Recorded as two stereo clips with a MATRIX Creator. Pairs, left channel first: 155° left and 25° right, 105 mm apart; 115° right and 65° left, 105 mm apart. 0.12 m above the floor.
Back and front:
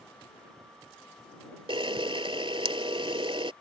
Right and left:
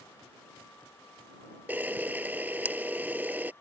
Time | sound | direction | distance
1.7 | a camera shutter | 5° right | ?